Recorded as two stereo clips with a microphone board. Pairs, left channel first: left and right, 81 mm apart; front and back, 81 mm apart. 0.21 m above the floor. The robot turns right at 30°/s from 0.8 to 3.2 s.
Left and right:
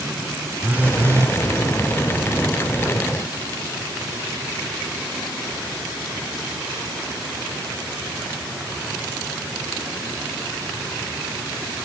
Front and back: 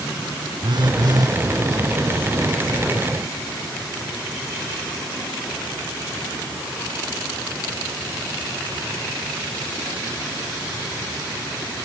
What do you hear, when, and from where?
0.6 s a phone buzzing: 155° right; by 1.4 s 140° right